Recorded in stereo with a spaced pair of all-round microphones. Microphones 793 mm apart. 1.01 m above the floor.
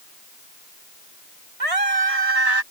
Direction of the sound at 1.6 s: 45° right (ahead or behind).